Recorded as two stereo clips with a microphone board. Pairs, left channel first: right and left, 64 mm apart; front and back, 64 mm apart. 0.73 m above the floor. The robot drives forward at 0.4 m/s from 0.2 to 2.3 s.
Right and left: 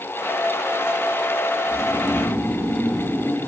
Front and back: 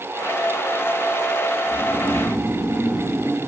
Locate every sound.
1.7 s snoring: 95° right, 1.1 m; by 3.4 s 130° right, 1.1 m